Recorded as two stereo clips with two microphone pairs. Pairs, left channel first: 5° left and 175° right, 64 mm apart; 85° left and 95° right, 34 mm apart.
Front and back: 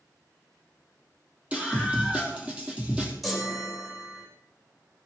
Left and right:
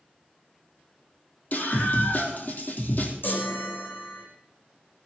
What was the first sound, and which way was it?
A scream, 115° left.